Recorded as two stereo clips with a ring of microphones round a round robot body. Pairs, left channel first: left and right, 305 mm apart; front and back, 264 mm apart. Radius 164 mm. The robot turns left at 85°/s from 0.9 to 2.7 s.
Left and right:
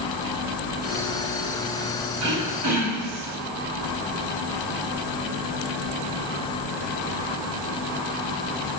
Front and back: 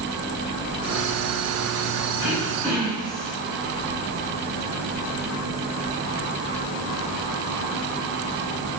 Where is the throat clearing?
45° right, 1.6 m; by 3.4 s 90° right, 1.6 m.